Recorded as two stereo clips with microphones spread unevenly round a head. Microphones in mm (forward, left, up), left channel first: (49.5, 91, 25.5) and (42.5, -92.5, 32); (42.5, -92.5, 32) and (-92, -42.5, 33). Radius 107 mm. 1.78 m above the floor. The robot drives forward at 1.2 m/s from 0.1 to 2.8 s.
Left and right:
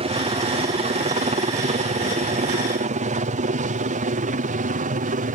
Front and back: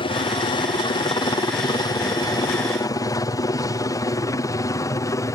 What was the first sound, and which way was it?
A helicopter, 50° right.